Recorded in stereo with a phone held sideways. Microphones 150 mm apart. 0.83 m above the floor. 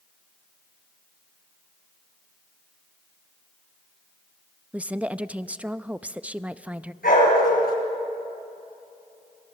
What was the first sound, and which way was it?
A woman speaking, 10° right (ahead or behind).